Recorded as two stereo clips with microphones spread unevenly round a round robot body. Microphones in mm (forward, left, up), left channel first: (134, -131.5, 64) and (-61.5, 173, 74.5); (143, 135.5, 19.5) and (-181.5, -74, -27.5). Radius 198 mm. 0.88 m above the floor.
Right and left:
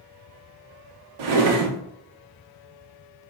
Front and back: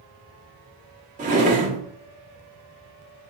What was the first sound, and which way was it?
A drawer, 140° left.